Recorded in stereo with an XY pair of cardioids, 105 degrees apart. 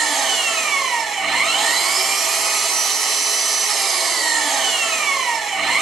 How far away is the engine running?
About 1.2 m.